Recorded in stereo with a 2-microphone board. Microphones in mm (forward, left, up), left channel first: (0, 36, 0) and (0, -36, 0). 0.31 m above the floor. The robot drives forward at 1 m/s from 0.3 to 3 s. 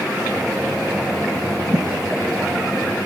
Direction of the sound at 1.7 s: 40° right (ahead or behind).